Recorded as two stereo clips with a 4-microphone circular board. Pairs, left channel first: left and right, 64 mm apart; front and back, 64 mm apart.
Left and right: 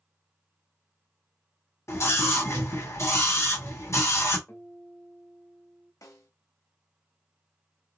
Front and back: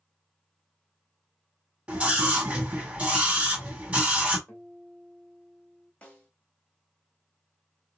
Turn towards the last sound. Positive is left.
turn(degrees=70)